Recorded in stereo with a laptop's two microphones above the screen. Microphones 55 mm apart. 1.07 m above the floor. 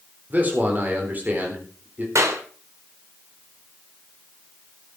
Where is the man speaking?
30° right (ahead or behind), 4 m.